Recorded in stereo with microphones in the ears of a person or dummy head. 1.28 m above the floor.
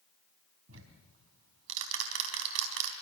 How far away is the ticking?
About 3.5 m.